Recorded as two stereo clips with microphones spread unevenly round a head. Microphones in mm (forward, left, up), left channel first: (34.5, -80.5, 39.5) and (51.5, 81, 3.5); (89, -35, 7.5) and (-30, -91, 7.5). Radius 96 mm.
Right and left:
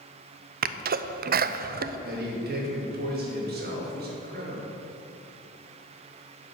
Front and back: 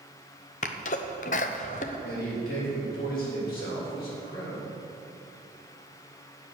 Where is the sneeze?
70° left, 0.7 m.